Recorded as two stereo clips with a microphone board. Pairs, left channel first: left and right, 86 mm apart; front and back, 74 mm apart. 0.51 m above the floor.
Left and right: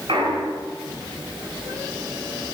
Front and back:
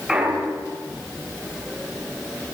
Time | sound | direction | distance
0.1 | a clunk | 100° right | 5 m